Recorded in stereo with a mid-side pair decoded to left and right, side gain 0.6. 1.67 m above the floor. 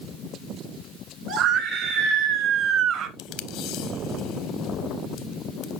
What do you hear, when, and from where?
1.3 s a scream: 65° right, 3 m
3.2 s tape being pulled: 70° left, 0.7 m